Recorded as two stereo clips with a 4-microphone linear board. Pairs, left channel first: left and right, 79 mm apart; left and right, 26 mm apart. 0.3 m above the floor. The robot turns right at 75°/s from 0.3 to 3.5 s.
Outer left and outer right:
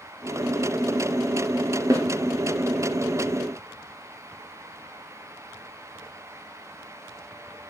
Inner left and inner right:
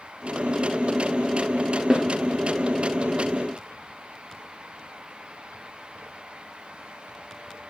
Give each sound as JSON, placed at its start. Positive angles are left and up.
{"t": 1.9, "sound": "a snare drum", "side_deg": -40, "distance_m": 2.5}